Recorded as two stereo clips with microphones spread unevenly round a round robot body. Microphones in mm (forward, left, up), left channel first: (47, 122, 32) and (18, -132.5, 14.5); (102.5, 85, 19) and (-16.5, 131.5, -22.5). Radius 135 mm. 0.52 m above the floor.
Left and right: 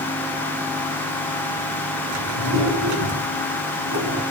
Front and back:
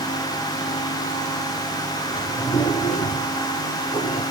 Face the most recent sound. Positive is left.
turn(degrees=-80)